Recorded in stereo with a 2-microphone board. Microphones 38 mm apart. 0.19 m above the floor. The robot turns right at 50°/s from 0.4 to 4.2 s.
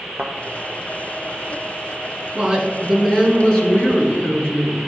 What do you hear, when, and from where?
0.2 s a thud: 50° right (ahead or behind), 0.7 m
2.4 s a woman speaking: 25° right, 1.7 m; by 4.8 s 70° left, 1.7 m